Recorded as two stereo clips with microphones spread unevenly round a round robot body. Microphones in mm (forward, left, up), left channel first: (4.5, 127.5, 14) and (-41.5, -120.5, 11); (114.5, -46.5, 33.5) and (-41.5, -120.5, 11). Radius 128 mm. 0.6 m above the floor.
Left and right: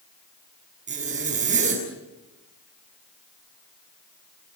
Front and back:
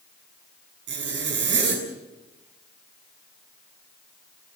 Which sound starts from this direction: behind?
A zipper, at 0.9 s.